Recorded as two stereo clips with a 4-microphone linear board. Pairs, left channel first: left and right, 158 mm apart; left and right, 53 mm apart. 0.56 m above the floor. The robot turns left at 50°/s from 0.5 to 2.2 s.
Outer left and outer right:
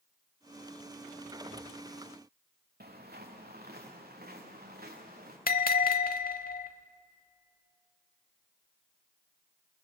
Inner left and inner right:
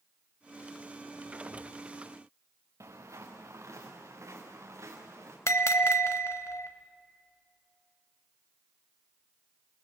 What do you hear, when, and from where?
2.8 s footsteps: 80° right, 3.5 m; by 5.4 s 75° right (ahead or behind), 5 m
5.5 s a bell: 70° left (ahead or behind), 1.0 m